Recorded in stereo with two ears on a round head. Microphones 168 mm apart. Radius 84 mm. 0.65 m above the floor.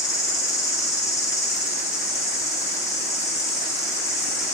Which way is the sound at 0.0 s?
15° left (ahead or behind).